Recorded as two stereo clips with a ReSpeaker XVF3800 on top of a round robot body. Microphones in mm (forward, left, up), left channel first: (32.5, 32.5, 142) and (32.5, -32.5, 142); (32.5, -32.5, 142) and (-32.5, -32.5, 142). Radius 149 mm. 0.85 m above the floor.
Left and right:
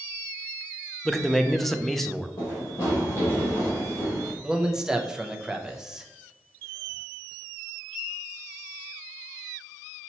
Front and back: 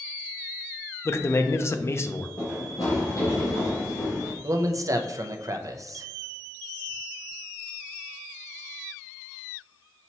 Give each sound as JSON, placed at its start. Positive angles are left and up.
{"t": 1.1, "sound": "a man speaking", "azimuth_deg": 5, "distance_m": 0.6}
{"t": 2.4, "sound": "running footsteps", "azimuth_deg": 60, "distance_m": 1.5}
{"t": 4.4, "sound": "a man speaking", "azimuth_deg": -170, "distance_m": 0.6}